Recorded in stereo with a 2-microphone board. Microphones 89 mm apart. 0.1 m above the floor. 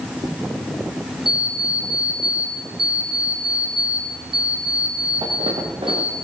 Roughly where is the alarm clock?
Right.